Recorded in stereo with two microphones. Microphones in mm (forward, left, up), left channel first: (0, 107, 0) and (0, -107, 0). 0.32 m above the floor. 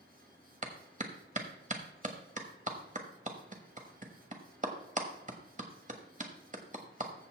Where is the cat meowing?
I don't hear a cat meowing.